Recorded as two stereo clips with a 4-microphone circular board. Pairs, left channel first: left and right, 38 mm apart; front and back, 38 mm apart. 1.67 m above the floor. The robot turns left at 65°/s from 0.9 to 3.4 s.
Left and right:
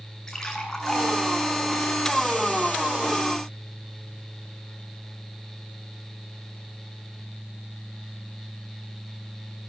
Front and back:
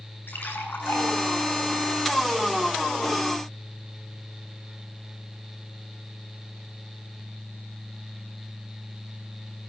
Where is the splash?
15° left, 9 m; by 3.2 s 140° right, 9 m.